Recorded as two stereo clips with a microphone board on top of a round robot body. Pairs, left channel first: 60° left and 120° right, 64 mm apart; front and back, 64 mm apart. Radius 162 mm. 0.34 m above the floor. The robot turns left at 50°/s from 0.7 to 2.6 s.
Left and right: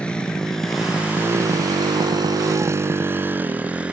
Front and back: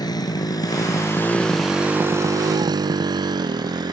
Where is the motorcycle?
15° right; by 3.9 s 165° left.